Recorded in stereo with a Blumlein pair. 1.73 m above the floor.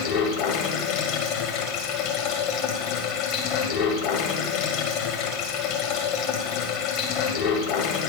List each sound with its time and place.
0.0 s running water: 45° left, 2.0 m